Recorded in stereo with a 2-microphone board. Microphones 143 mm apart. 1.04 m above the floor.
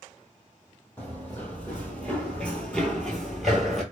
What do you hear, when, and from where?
1.0 s running footsteps: 10° left (ahead or behind), 1.4 m; by 3.8 s centre (ahead or behind), 1.1 m